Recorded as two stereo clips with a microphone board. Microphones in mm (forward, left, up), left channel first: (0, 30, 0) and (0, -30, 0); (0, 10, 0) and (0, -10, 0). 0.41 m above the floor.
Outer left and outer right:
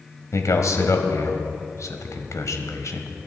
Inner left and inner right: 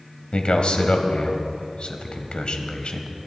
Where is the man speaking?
60° left (ahead or behind), 1.9 m.